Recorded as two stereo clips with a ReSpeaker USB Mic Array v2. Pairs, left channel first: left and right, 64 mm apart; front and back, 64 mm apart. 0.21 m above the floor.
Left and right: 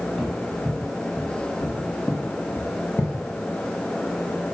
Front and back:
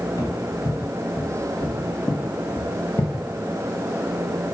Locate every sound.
0.2 s footsteps: 15° left, 3 m; by 3.1 s 40° left, 1.9 m